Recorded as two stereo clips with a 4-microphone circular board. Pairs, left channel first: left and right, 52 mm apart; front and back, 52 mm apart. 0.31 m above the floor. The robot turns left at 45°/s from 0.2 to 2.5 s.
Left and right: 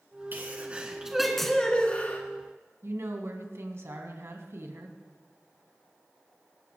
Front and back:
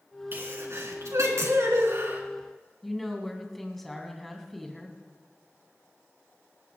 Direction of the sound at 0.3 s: 140° right.